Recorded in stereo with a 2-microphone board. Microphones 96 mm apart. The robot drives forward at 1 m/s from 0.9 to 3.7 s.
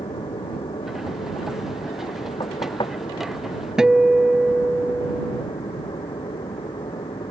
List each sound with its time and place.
0.0 s an aircraft: 65° left (ahead or behind); by 7.3 s 60° left (ahead or behind)
2.4 s knocking: 50° left (ahead or behind)
3.8 s a guitar: 5° right (ahead or behind)